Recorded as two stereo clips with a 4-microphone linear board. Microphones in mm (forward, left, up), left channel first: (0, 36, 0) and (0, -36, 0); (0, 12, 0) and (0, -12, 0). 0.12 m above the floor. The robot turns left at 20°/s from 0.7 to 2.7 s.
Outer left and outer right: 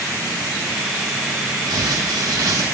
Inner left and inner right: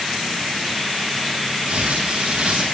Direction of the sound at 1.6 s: 70° right (ahead or behind).